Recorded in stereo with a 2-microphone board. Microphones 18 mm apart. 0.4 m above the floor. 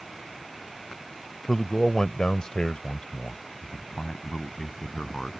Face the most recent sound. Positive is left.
turn(degrees=40)  # may be behind; listen again after turning